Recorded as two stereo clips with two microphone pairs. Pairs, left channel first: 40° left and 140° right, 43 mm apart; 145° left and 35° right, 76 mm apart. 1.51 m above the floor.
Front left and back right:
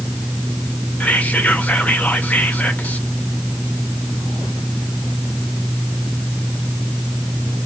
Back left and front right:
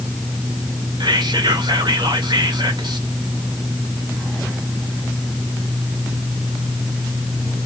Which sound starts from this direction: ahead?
Whispering, at 1.0 s.